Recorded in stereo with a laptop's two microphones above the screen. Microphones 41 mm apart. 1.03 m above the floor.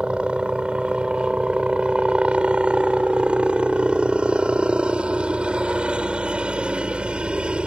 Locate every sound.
0.0 s a helicopter: 30° right (ahead or behind)